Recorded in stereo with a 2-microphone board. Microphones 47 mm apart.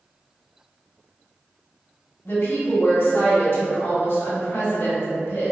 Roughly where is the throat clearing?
I don't hear throat clearing.